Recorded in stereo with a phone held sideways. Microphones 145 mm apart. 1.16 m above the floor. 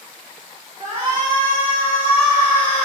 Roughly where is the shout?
Right.